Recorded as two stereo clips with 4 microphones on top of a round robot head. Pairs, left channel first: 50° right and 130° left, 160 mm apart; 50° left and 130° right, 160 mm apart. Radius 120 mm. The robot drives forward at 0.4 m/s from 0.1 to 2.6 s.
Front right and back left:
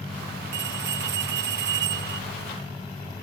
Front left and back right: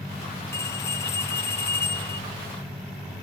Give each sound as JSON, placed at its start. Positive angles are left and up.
{"t": 0.5, "sound": "a bell", "azimuth_deg": 125}